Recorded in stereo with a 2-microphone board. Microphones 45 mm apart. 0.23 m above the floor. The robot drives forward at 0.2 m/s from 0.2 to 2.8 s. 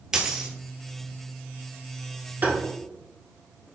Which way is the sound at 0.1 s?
15° right (ahead or behind).